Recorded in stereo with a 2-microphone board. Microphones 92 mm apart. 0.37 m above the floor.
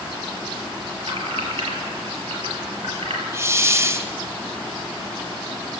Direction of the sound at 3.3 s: 30° right (ahead or behind).